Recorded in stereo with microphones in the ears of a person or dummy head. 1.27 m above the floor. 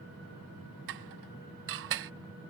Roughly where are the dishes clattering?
Right.